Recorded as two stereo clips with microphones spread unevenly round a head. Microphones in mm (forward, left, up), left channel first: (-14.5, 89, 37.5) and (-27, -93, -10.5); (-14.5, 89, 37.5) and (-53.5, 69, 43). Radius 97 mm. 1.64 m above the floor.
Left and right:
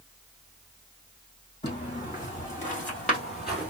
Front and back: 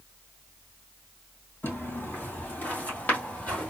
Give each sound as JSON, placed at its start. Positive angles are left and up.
{"t": 1.6, "sound": "footsteps", "azimuth_deg": 45, "distance_m": 2.5}